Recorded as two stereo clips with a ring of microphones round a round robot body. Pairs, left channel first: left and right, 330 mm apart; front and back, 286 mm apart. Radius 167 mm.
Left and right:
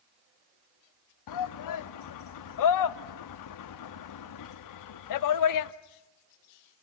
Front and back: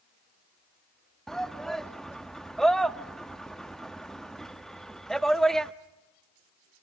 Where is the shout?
90° left, 0.9 m.